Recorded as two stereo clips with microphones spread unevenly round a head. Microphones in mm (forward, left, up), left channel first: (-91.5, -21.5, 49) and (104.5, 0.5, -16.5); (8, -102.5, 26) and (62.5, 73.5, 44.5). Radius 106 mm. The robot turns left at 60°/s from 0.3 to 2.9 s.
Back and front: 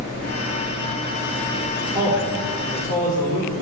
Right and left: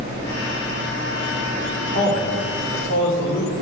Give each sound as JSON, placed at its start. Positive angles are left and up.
{"t": 1.8, "sound": "a man speaking", "azimuth_deg": -50, "distance_m": 3.5}